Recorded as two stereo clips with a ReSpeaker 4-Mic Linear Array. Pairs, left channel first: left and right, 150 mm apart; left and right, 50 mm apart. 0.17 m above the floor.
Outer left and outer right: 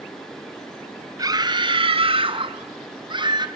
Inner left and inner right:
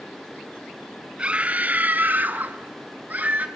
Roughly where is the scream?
Right.